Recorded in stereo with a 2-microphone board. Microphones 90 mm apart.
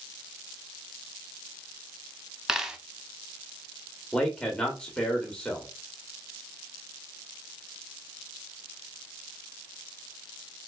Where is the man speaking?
10° left (ahead or behind), 1.0 m.